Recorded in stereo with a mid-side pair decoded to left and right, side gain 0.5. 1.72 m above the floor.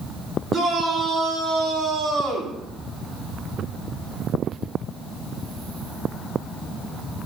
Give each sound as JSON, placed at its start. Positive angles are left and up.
{"t": 0.5, "sound": "a shout", "azimuth_deg": -30, "distance_m": 7.5}